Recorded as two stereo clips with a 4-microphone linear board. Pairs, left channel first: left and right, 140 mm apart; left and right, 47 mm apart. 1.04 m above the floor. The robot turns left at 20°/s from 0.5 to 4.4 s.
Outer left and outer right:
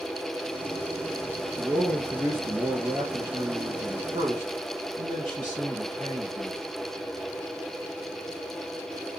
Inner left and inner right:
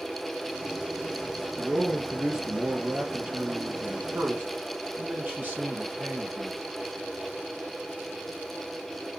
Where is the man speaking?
5° left, 1.5 m; by 6.6 s 55° right, 1.5 m.